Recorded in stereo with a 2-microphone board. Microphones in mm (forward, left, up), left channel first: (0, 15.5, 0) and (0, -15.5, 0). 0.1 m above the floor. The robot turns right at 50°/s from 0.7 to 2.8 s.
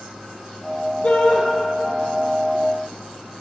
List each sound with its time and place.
1.0 s a shout: 60° left (ahead or behind), 3.5 m; by 1.4 s 50° left (ahead or behind), 3.5 m